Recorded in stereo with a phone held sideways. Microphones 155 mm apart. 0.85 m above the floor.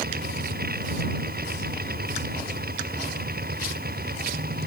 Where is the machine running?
80° right.